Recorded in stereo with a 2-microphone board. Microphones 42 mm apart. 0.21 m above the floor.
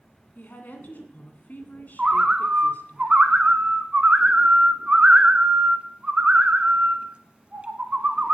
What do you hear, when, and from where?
0.3 s a woman speaking: 50° left (ahead or behind), 2.5 m
2.0 s a bird: 30° right (ahead or behind), 1.0 m